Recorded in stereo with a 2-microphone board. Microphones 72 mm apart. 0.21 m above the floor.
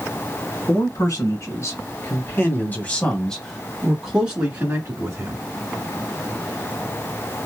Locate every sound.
0.7 s a man speaking: 50° left (ahead or behind), 1.9 m; by 5.4 s 35° right (ahead or behind), 1.5 m